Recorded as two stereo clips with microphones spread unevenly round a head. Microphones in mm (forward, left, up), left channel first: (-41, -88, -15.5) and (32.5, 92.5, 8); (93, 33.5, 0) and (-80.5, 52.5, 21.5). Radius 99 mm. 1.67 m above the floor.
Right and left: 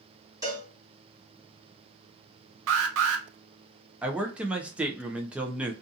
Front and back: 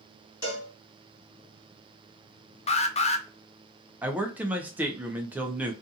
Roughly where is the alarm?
Ahead left.